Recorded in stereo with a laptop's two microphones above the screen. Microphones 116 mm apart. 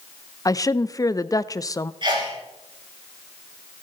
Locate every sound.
0.5 s a woman speaking: 30° left (ahead or behind), 0.5 m
2.0 s a sneeze: 45° right (ahead or behind), 6.5 m